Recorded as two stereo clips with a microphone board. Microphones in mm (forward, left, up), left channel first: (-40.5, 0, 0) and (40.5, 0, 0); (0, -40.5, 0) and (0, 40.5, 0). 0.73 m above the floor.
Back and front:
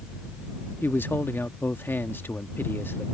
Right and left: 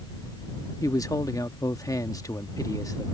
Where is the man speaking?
125° right.